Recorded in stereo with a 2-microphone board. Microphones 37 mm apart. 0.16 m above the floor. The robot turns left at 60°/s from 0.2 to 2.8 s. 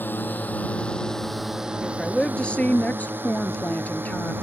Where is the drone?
65° left (ahead or behind); by 4.4 s 80° right.